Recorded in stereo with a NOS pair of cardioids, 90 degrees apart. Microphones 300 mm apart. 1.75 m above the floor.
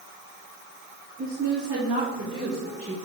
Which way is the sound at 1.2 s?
50° right.